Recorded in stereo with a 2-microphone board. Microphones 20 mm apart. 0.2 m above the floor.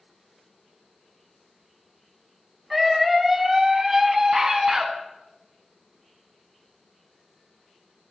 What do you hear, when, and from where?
2.7 s a scream: 5° right (ahead or behind), 1.7 m; by 4.9 s 40° right (ahead or behind), 1.9 m